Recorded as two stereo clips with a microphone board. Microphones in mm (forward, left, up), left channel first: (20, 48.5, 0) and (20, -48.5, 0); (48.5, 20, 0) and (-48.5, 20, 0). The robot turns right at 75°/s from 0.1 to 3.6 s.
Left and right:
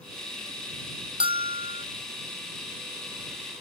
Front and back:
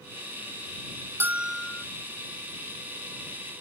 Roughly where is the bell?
Behind right.